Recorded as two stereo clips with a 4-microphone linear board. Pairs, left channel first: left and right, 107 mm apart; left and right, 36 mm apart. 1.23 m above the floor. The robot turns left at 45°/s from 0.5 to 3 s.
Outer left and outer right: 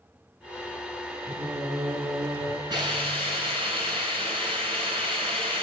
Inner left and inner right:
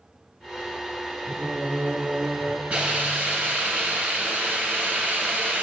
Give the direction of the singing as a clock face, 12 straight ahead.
3 o'clock.